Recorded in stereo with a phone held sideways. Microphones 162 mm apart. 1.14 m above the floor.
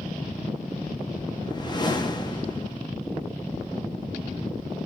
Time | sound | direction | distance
1.4 | a whoosh | 30° left (ahead or behind) | 0.7 m